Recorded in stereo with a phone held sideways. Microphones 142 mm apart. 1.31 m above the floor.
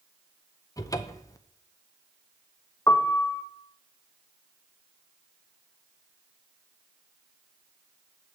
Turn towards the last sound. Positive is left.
turn(degrees=25)  # may be behind; listen again after turning